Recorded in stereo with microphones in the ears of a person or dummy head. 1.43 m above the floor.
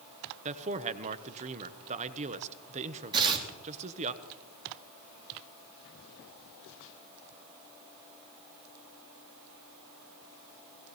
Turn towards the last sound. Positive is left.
turn(degrees=-25)  # may be behind; listen again after turning